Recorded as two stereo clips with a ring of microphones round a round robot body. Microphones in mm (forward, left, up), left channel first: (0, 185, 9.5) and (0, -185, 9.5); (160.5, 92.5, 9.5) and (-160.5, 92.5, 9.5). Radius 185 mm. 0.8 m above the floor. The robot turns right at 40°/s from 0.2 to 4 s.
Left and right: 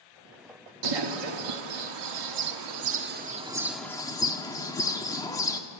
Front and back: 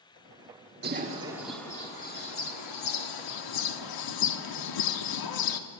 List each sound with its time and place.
0.8 s a bird: 115° right, 1.5 m; by 5.6 s 10° left, 1.5 m